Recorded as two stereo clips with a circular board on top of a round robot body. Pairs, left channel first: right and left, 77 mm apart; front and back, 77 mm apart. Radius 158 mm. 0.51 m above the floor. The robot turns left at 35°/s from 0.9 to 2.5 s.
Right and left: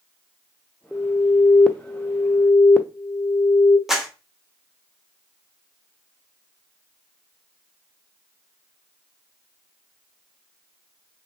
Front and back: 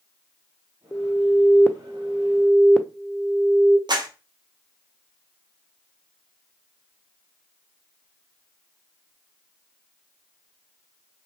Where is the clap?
175° left, 0.8 m.